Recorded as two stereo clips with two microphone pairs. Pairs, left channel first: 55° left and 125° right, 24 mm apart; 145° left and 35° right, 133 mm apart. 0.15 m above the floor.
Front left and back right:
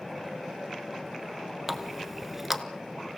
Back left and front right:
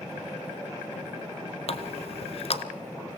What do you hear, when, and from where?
1.7 s a running tap: 160° left, 1.2 m